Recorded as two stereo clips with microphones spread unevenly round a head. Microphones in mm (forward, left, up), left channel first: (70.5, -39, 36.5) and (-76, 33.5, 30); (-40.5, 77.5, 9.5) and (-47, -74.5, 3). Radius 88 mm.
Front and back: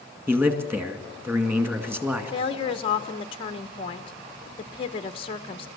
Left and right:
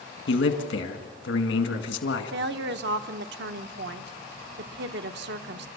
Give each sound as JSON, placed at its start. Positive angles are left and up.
{"t": 0.3, "sound": "a man speaking", "azimuth_deg": 75, "distance_m": 2.0}
{"t": 2.3, "sound": "a woman speaking", "azimuth_deg": -85, "distance_m": 0.8}